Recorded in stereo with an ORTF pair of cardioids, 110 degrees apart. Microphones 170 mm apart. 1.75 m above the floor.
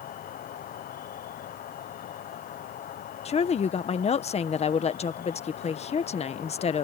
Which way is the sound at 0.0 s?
55° left.